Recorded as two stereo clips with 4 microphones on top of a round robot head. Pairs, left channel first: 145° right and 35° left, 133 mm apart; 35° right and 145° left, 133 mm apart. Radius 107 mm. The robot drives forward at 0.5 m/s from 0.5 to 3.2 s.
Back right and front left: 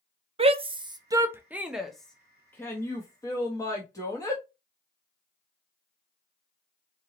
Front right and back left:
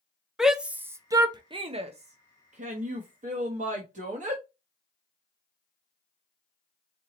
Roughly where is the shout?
Ahead left.